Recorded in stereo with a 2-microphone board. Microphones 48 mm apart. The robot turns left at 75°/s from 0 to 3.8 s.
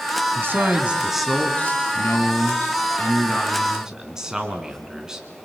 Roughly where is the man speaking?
Behind right.